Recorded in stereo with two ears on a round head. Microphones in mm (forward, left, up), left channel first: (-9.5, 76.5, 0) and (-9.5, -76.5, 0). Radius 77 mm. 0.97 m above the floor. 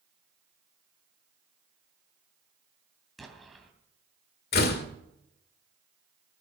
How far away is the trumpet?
No trumpet in this recording.